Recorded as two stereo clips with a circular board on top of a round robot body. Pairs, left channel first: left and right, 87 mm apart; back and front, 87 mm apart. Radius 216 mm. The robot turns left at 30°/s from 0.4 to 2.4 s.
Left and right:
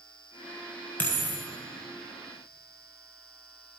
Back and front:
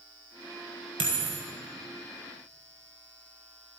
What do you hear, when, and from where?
1.0 s a dropped coin: 20° left, 1.4 m; by 1.4 s 5° left, 1.4 m